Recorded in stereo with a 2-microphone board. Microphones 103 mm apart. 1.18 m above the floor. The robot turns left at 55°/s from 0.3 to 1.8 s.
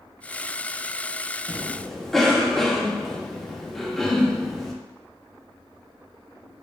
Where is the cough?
15° right (ahead or behind), 0.7 m; by 4.7 s 5° left (ahead or behind), 0.7 m.